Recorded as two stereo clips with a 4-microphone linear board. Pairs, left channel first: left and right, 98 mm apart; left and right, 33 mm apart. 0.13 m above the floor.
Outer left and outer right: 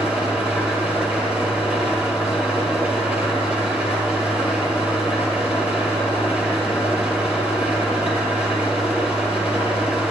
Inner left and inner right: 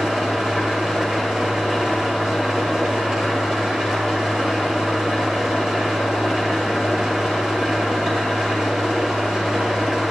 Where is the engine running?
15° right (ahead or behind), 2 m.